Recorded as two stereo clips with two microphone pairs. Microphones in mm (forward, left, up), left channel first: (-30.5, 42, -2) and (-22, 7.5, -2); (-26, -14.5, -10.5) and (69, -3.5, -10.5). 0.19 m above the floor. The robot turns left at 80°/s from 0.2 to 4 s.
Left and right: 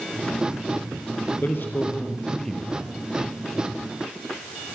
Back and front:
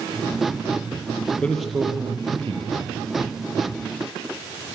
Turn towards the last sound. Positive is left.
turn(degrees=-95)